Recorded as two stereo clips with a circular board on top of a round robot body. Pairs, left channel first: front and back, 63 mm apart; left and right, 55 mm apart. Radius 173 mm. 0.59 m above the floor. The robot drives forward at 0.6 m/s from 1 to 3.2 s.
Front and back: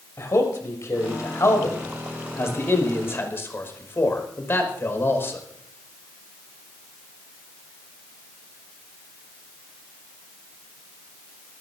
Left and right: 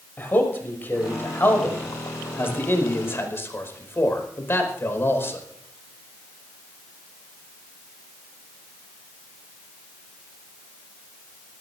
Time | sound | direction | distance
0.2 | a man speaking | 40° left | 6 m